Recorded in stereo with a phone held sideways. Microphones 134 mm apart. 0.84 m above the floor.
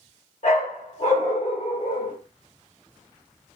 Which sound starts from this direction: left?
A dog barking, at 0.4 s.